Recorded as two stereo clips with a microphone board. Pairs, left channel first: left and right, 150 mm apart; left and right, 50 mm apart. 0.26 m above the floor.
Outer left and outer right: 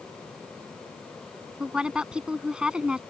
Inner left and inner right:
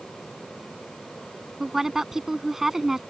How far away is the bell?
I don't hear a bell.